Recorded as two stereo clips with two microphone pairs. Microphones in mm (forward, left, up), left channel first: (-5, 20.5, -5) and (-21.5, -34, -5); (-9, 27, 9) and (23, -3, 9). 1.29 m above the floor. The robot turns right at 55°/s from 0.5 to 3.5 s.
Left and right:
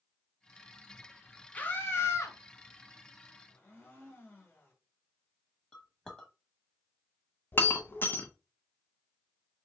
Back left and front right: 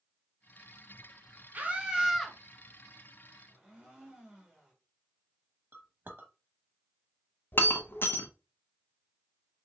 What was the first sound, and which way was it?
A scream, 5° left.